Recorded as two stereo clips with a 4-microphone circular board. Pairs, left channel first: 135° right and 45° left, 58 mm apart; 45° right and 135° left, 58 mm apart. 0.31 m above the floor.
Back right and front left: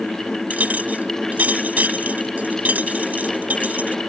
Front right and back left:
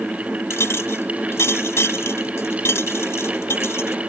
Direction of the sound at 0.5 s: 10° right.